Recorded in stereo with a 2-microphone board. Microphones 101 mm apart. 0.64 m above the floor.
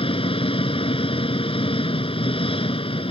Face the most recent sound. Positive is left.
turn(degrees=65)  # may be behind; listen again after turning